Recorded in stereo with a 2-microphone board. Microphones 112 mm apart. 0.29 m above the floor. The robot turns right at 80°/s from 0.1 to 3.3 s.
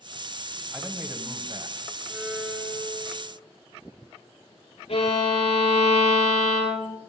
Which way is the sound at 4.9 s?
75° left (ahead or behind).